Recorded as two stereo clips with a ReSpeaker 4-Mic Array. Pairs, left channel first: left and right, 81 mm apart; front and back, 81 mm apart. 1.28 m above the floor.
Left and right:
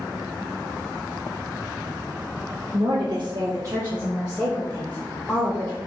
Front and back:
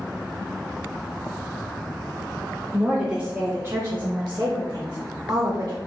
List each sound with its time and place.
2.7 s a woman speaking: 90° right, 0.9 m; by 5.8 s 150° left, 1.4 m